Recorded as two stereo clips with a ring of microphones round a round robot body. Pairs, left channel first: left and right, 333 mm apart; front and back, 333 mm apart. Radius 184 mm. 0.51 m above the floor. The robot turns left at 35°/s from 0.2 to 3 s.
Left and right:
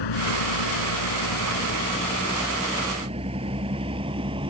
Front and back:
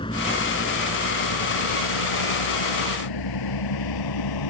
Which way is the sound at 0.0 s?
80° left.